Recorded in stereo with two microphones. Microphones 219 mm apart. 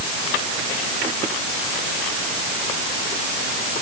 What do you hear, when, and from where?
Only background noise.